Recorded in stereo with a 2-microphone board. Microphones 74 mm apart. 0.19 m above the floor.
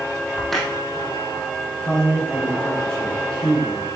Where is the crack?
5° left (ahead or behind), 2 m.